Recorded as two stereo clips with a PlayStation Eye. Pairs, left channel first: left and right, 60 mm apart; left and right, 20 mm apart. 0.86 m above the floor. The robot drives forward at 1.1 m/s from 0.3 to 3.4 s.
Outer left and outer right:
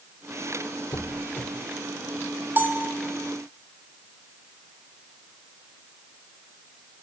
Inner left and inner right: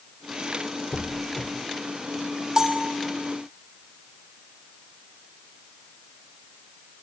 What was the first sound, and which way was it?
A squeak, 50° left (ahead or behind).